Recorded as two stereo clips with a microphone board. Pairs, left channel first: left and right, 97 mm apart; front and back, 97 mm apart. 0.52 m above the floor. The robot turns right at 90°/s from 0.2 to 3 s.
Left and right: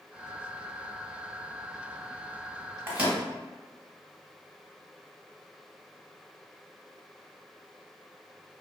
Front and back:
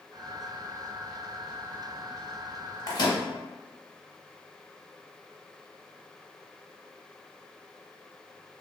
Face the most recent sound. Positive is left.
turn(degrees=-15)